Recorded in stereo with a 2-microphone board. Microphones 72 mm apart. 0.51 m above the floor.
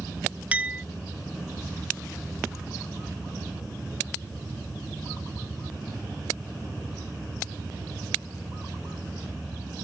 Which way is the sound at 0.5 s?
15° right (ahead or behind).